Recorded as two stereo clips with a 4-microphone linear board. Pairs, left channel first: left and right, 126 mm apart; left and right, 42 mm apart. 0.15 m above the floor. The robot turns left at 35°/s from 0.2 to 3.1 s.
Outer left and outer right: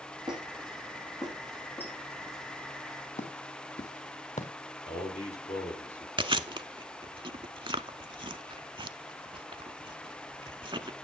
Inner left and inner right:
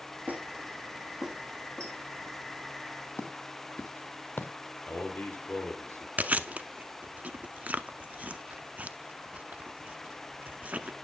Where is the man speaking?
60° left (ahead or behind), 3 m.